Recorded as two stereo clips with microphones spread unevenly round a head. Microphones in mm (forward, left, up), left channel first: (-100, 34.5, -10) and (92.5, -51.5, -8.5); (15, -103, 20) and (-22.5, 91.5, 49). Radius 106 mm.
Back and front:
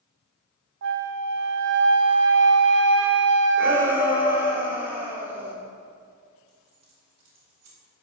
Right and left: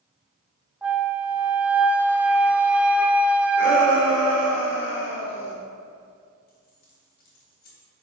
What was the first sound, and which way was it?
A flute, 20° left.